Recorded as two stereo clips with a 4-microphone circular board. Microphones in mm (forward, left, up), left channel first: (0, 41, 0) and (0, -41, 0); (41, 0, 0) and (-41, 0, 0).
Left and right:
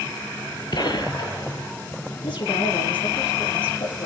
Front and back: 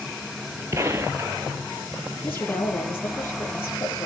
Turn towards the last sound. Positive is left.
turn(degrees=65)